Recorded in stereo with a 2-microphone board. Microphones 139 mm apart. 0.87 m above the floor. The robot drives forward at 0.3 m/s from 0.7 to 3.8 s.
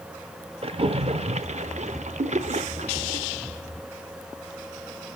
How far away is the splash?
About 0.8 m.